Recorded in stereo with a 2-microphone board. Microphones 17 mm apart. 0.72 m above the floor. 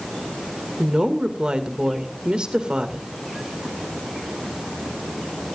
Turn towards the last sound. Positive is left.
turn(degrees=-55)  # may be behind; listen again after turning